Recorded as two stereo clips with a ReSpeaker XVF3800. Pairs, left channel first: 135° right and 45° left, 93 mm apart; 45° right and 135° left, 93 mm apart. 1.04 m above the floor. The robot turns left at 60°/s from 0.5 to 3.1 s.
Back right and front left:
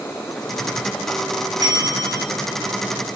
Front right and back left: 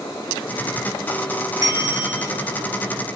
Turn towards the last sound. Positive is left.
turn(degrees=0)